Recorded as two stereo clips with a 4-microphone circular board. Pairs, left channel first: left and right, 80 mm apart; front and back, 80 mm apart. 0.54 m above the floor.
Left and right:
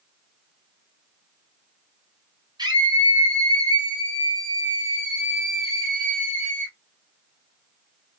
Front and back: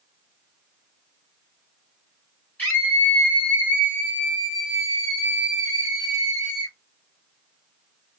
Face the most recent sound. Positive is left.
turn(degrees=145)